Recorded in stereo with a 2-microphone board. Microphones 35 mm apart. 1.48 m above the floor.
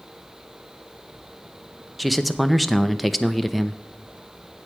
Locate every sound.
2.0 s a man speaking: centre (ahead or behind), 0.6 m